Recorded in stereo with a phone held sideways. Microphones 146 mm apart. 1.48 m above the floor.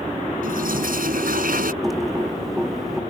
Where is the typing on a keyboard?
Centre (ahead or behind).